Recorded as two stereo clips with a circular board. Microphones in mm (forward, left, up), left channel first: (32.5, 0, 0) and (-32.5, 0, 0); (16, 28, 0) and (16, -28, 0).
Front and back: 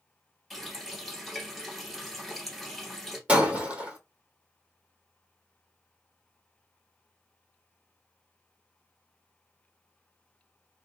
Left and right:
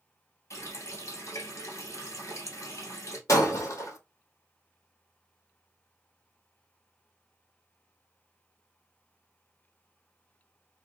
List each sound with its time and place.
0.5 s a running tap: 85° left, 1.5 m
3.3 s breaking glass: 110° left, 1.3 m